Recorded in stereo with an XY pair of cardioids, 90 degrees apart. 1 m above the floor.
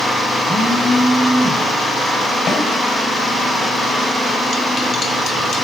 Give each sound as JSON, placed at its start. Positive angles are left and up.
{"t": 0.5, "sound": "a phone buzzing", "azimuth_deg": -10, "distance_m": 6.5}
{"t": 2.5, "sound": "a snare drum", "azimuth_deg": 55, "distance_m": 6.0}